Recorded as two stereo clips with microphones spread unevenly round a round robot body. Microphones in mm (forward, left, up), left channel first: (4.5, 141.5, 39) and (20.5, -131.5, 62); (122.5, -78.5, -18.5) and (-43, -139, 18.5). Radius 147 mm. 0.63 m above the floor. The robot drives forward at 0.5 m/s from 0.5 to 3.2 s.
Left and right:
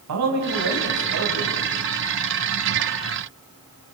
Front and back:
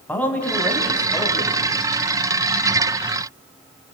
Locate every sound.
0.1 s a man speaking: 60° right, 5 m; by 1.6 s 65° right, 5 m